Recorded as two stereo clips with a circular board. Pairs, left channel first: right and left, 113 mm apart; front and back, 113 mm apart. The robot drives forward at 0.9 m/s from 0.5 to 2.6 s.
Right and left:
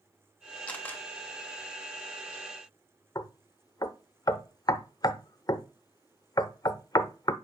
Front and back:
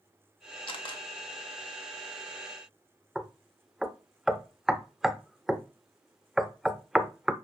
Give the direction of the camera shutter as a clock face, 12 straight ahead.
1 o'clock.